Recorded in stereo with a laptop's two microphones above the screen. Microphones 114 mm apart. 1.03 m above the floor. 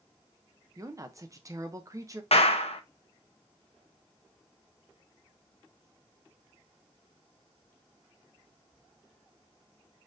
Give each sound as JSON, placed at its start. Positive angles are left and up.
{"t": 0.8, "sound": "a woman speaking", "side_deg": -30, "distance_m": 0.5}
{"t": 2.3, "sound": "a clap", "side_deg": 75, "distance_m": 0.7}